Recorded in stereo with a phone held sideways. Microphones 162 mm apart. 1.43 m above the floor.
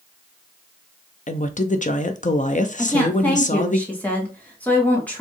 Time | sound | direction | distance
1.3 | a woman speaking | 50° left (ahead or behind) | 0.6 m
2.8 | a woman speaking | 10° left (ahead or behind) | 1.7 m